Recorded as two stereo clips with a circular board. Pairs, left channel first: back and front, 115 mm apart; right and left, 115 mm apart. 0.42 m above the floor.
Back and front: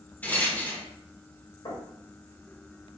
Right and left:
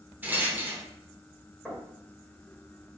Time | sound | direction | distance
0.2 | a rattle | 135° left | 0.9 m
1.6 | knocking | 170° right | 1.6 m